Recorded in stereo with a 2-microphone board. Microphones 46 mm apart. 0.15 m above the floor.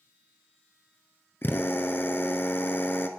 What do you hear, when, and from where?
1.4 s a drill: 50° left (ahead or behind), 0.8 m